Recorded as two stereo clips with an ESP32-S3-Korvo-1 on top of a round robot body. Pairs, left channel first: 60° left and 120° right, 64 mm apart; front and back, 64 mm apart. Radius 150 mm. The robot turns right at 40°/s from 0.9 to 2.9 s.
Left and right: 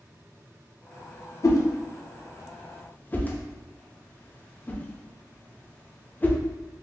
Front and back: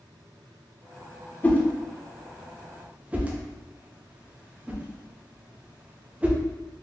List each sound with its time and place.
1.4 s a whoosh: 60° left, 0.7 m; by 6.4 s 115° left, 0.7 m